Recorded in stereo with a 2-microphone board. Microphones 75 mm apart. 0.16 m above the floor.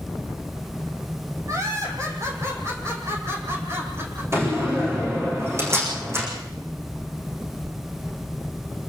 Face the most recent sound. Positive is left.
turn(degrees=-35)  # may be behind; listen again after turning